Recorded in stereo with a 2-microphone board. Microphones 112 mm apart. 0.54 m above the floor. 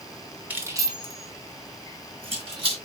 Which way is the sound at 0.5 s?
15° right (ahead or behind).